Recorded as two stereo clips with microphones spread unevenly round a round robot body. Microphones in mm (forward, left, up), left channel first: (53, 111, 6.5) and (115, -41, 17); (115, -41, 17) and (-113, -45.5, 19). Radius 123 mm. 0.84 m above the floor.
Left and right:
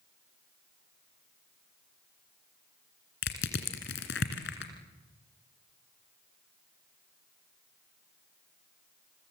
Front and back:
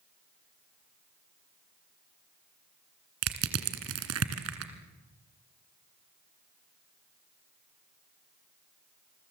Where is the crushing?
150° left, 2 m.